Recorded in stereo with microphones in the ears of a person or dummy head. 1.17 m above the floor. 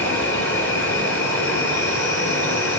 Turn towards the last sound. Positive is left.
turn(degrees=10)  # may be behind; listen again after turning